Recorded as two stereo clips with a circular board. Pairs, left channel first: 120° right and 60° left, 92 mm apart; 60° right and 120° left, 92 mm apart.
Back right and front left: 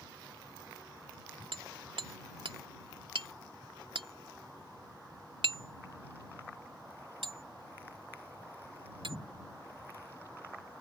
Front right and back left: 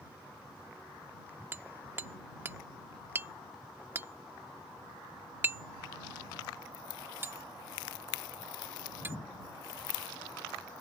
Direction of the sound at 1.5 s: 55° left.